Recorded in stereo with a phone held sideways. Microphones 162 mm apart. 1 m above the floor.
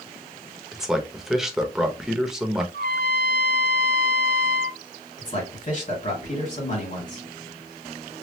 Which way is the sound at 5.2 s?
50° left (ahead or behind).